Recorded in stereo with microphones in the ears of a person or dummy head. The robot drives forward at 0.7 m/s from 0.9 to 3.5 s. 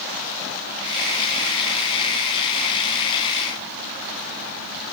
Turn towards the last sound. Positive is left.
No sound to turn to.